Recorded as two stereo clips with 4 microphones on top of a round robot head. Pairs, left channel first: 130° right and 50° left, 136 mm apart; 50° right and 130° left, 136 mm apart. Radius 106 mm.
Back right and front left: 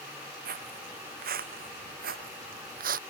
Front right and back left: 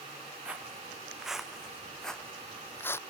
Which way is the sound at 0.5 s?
50° left.